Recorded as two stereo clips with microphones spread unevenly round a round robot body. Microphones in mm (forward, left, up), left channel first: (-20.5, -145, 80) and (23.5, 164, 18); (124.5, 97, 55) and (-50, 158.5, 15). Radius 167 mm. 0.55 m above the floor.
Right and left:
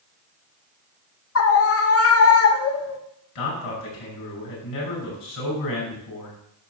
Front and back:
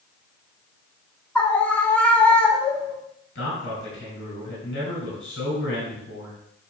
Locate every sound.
1.4 s a scream: 115° right, 1.2 m
3.4 s a man speaking: 70° right, 5.5 m